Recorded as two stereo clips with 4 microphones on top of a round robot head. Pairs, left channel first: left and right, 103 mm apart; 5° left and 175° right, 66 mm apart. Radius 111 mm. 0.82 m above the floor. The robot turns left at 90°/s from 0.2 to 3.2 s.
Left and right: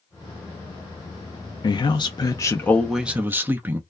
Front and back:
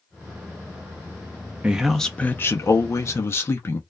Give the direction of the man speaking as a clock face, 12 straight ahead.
8 o'clock.